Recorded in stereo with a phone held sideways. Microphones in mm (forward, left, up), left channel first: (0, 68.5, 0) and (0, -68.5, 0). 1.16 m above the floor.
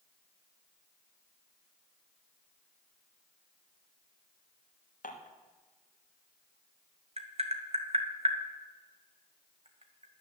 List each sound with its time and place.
5.0 s dishes clattering: 75° left (ahead or behind), 1.3 m
7.2 s tapping: 50° right (ahead or behind), 1.2 m